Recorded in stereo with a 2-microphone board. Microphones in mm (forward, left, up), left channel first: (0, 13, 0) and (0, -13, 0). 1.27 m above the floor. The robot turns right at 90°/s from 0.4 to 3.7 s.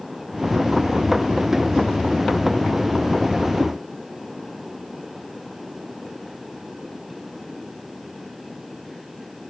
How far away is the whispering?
I don't hear whispering.